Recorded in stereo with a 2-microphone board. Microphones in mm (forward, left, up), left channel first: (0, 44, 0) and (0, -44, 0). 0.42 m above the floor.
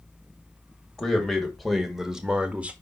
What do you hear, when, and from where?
1.0 s a man speaking: 5° left (ahead or behind), 2.0 m; by 2.7 s 15° right (ahead or behind), 1.1 m